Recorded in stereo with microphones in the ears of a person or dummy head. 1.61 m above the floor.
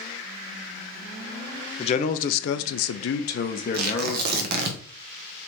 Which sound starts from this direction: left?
A man speaking, at 1.8 s.